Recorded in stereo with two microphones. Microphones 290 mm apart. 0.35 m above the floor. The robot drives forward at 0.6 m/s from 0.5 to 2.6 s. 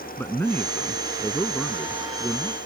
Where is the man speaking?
5° left (ahead or behind).